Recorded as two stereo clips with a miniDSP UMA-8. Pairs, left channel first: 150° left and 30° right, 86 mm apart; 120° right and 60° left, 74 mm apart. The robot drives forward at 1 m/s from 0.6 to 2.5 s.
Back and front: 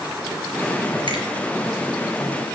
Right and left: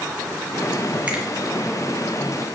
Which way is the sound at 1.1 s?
15° right.